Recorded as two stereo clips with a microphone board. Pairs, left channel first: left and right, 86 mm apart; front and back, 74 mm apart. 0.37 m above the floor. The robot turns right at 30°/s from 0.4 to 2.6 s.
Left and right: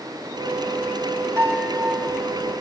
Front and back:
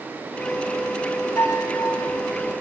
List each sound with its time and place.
1.4 s a piano: 35° right, 1.7 m; by 2.1 s 15° right, 1.7 m